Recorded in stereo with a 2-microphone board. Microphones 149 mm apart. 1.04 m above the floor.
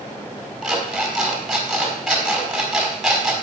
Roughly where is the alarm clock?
Centre.